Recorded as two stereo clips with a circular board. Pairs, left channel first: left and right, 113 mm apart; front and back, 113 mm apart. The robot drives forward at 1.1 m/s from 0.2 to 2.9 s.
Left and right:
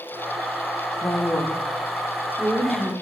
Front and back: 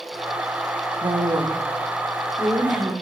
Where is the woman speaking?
150° left, 0.8 m; by 2.9 s 175° left, 2.5 m.